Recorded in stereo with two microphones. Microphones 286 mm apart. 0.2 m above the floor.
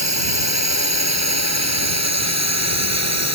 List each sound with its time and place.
0.0 s a drone: 70° right (ahead or behind); by 3.4 s 65° right (ahead or behind)